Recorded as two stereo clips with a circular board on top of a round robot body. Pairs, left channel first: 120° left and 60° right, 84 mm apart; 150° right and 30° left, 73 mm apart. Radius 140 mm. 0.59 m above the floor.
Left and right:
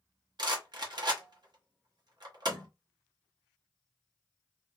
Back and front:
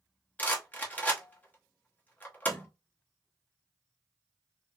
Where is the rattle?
85° right, 1.2 m.